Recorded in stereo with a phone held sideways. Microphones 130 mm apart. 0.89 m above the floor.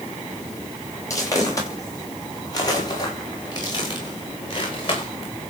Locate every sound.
1.1 s footsteps: 25° left (ahead or behind), 10 m; by 5.3 s 40° left (ahead or behind), 8 m